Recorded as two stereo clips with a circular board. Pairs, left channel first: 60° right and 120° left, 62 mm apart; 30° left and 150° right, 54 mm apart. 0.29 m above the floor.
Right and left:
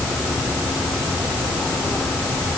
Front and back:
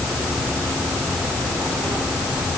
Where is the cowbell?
I don't hear a cowbell.